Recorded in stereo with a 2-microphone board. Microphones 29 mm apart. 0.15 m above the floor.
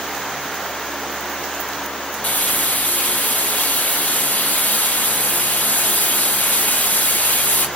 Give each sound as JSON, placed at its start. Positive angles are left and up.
{"t": 2.2, "sound": "frying", "side_deg": 80, "distance_m": 0.7}